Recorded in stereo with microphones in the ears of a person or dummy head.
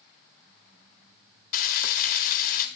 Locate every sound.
1.5 s frying: 50° left (ahead or behind), 1.5 m